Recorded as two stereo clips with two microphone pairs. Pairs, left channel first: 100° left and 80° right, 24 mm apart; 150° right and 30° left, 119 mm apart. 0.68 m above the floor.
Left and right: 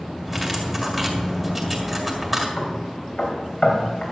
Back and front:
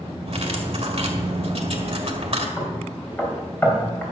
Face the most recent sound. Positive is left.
turn(degrees=135)